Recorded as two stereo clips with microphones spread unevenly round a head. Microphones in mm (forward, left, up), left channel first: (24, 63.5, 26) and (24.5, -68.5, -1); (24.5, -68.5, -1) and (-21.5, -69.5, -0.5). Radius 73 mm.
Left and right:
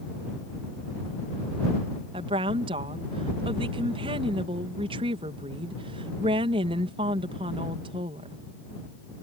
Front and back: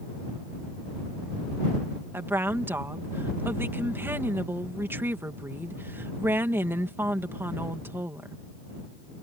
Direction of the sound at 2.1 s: 145° right.